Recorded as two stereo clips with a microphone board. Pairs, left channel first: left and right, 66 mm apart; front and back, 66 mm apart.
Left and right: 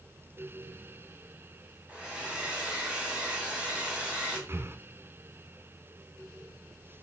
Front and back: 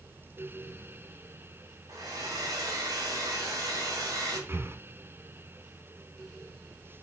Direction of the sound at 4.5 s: 130° right.